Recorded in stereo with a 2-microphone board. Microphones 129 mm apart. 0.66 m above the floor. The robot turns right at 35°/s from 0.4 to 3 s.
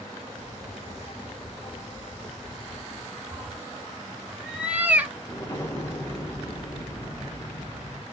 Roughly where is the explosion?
Left.